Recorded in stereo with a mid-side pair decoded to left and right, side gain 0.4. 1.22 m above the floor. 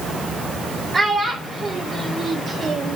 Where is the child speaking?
35° right, 4.5 m; by 3.0 s 70° right, 1.7 m.